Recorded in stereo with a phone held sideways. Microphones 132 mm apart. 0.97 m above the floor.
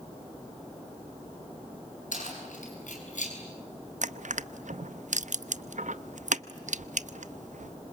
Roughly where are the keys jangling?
Left.